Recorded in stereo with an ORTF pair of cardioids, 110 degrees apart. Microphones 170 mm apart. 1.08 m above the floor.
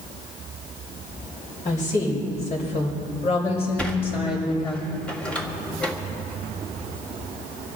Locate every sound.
1.6 s a woman speaking: 50° left, 6 m; by 4.8 s 30° left, 5 m
3.8 s a sliding door: 5° left, 2 m